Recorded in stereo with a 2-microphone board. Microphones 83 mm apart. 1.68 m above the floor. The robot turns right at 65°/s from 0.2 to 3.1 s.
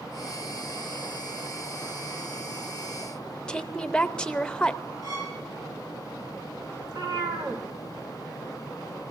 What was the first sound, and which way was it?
A woman speaking, 10° left (ahead or behind).